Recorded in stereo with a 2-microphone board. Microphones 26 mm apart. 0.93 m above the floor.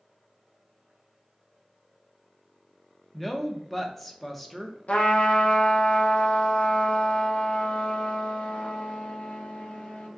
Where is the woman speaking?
10° left (ahead or behind), 0.5 m.